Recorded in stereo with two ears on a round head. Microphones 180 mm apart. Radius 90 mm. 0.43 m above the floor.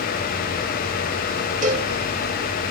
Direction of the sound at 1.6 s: 40° right (ahead or behind).